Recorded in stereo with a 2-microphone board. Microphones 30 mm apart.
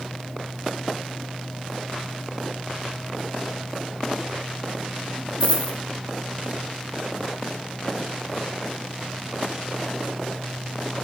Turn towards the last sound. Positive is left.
turn(degrees=40)  # may be behind; listen again after turning